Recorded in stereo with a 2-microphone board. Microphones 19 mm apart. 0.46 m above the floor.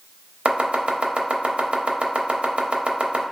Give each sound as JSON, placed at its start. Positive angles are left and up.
{"t": 0.5, "sound": "chopping", "side_deg": -75, "distance_m": 0.5}